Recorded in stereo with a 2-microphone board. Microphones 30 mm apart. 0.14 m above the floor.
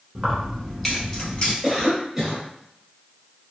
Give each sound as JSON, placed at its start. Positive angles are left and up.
{"t": 0.1, "sound": "keys jangling", "side_deg": -25, "distance_m": 1.1}
{"t": 1.6, "sound": "a cough", "side_deg": -15, "distance_m": 1.5}